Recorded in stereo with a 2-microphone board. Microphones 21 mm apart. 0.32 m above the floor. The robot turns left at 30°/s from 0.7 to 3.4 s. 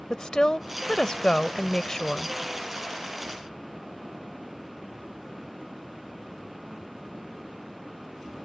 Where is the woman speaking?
75° left; by 2.4 s 25° left.